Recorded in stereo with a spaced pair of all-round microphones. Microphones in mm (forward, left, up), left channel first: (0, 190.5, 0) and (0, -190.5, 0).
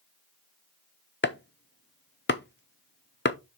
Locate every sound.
1.2 s chopping: 30° left (ahead or behind), 0.6 m